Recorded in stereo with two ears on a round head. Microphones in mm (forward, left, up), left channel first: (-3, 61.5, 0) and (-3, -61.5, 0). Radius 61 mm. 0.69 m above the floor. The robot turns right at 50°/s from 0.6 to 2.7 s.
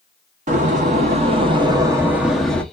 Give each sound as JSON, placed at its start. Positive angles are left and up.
{"t": 0.5, "sound": "a door slam", "azimuth_deg": -90, "distance_m": 0.7}